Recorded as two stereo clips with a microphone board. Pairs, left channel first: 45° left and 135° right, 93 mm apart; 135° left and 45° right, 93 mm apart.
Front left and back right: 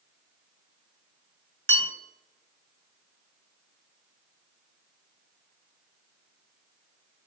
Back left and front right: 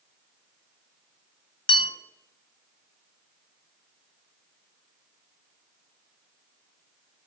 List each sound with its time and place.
1.7 s a bell: 115° left, 1.3 m